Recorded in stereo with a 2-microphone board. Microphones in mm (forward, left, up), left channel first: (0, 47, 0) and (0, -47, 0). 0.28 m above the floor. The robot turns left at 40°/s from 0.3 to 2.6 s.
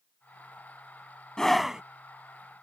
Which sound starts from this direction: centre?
A scream, at 1.4 s.